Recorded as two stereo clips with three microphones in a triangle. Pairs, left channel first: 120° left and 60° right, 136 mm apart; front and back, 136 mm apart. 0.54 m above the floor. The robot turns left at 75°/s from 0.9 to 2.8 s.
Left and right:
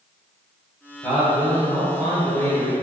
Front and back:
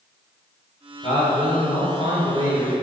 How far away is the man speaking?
About 3 m.